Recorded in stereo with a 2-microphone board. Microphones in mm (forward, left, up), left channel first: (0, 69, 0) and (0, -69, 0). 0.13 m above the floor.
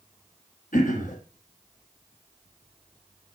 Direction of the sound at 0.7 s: 75° left (ahead or behind).